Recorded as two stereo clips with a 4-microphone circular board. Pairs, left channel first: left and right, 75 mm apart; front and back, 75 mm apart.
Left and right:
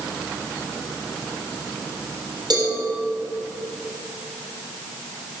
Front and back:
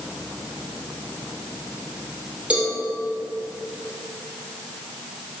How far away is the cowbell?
About 3.5 m.